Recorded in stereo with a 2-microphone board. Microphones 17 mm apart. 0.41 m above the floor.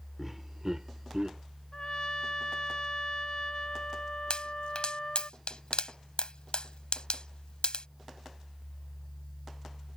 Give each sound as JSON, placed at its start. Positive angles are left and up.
{"t": 0.2, "sound": "laughter", "side_deg": -10}
{"t": 1.7, "sound": "a trumpet", "side_deg": 45}
{"t": 4.3, "sound": "a pop", "side_deg": 65}